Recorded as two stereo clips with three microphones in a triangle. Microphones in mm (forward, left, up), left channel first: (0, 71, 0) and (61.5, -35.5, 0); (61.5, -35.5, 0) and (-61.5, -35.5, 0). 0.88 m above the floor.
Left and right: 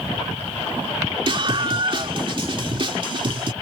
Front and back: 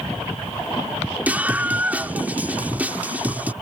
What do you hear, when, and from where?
1.3 s a scream: 105° right